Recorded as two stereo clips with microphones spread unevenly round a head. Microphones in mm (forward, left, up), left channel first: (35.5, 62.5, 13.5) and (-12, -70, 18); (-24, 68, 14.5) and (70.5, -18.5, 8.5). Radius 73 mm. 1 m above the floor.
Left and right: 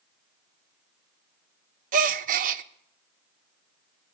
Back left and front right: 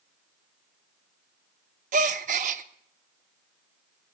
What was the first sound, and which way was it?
A gasp, 85° right.